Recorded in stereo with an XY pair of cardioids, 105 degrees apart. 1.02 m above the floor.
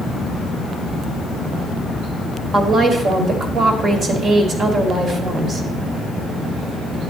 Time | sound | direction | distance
2.5 | a woman speaking | 45° right | 2.0 m